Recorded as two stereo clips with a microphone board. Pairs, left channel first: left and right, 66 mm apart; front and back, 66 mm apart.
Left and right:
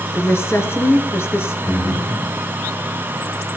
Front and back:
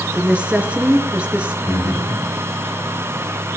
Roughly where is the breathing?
Ahead left.